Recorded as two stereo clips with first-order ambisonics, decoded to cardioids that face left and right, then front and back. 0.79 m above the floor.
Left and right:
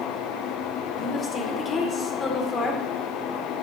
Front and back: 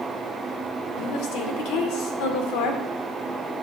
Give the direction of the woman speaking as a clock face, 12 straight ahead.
11 o'clock.